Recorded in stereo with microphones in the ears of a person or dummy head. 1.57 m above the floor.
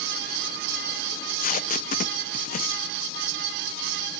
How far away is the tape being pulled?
About 1.3 m.